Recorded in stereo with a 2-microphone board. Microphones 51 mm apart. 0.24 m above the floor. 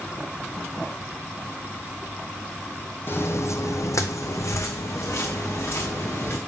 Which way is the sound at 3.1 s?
45° left (ahead or behind).